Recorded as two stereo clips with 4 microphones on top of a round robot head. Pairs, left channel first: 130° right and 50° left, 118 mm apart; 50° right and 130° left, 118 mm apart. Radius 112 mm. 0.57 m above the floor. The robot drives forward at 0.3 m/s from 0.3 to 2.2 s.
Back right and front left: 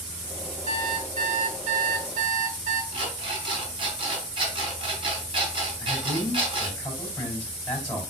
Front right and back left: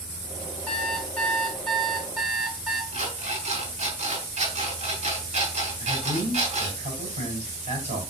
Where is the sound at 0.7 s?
30° left, 1.6 m; by 2.8 s 40° left, 1.2 m.